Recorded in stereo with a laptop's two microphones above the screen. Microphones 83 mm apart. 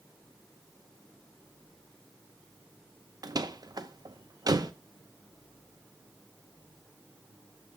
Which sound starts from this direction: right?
A door slam, at 3.2 s.